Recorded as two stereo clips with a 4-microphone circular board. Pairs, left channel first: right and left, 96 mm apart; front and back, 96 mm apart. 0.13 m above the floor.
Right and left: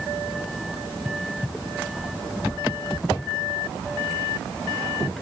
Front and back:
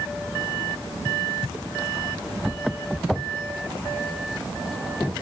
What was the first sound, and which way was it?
Only background noise.